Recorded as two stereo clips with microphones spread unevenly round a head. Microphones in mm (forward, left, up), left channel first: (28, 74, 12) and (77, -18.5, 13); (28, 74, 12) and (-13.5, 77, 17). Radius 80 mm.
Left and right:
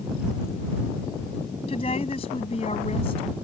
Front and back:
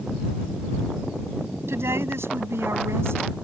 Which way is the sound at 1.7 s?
175° left.